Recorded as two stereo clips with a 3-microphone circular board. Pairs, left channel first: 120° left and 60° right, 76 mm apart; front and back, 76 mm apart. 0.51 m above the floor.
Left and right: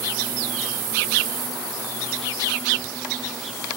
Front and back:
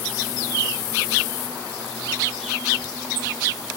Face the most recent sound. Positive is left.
No sound to turn to.